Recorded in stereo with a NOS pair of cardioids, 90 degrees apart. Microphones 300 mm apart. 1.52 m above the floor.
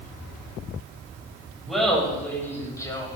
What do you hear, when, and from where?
1.7 s laughter: straight ahead, 7 m; by 3.2 s 15° left, 6 m